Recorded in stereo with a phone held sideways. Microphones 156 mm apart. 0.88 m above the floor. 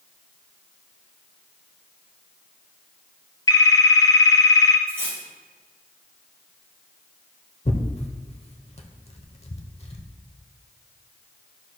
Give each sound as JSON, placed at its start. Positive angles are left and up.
{"t": 3.5, "sound": "a phone ringing", "side_deg": 25, "distance_m": 0.8}
{"t": 4.9, "sound": "cutlery clinking", "side_deg": -15, "distance_m": 2.0}
{"t": 7.7, "sound": "tearing paper", "side_deg": 40, "distance_m": 0.9}